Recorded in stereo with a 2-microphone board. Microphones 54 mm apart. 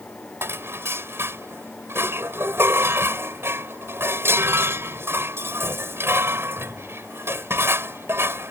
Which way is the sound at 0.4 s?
45° right (ahead or behind).